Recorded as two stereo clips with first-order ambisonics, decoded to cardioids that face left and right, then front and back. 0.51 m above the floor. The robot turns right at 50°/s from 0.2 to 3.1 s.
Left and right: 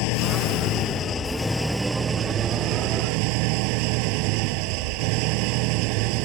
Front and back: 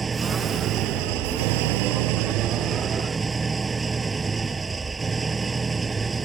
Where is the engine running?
110° left; by 6.2 s 105° right.